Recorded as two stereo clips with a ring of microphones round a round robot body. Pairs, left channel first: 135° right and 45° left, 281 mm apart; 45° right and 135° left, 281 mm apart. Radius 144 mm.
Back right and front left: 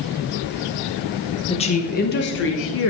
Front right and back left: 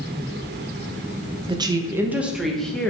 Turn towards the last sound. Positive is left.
turn(degrees=-130)